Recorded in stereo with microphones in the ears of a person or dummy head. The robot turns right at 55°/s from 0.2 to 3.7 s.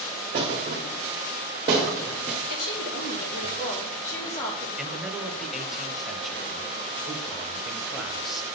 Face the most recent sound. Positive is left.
turn(degrees=-5)  # may be behind; listen again after turning